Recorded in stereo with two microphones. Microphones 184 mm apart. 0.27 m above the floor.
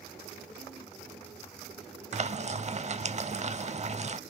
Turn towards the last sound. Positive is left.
turn(degrees=-40)  # may be behind; listen again after turning